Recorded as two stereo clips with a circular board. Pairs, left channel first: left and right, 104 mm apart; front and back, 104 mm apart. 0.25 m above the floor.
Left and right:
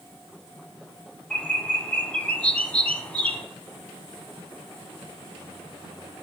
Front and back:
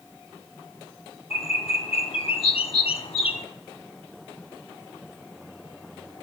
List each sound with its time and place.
1.3 s a bird: 15° left, 0.7 m